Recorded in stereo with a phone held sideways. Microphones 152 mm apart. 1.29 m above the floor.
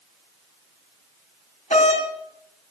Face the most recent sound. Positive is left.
turn(degrees=50)  # may be behind; listen again after turning